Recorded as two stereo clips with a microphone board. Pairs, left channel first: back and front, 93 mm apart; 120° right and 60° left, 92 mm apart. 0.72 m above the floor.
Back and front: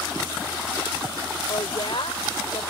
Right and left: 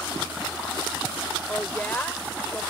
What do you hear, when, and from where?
1.5 s a woman speaking: 170° left